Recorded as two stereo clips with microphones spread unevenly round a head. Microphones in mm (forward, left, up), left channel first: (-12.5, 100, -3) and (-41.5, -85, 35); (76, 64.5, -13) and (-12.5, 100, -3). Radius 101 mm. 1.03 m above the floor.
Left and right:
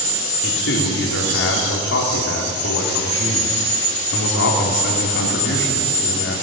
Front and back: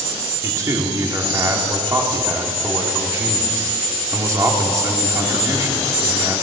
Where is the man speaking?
100° left, 2.5 m.